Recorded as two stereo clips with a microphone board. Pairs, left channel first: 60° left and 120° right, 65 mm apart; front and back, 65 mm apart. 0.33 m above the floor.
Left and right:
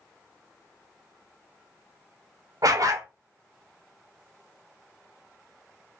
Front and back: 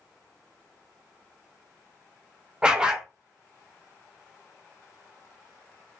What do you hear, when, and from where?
2.6 s a dog barking: 105° right, 0.5 m